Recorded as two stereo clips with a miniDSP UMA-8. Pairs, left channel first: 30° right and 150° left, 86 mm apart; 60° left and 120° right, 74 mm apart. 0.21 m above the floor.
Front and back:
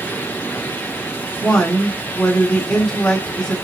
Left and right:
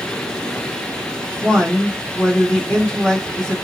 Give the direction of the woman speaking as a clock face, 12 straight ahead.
11 o'clock.